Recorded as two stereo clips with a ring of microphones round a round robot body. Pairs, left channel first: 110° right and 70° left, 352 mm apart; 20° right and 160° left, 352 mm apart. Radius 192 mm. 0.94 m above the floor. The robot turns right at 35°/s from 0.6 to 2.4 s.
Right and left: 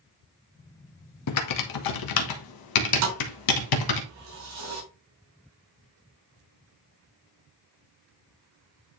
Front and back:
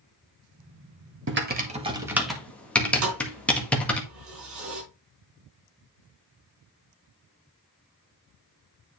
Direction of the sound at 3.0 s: 115° left.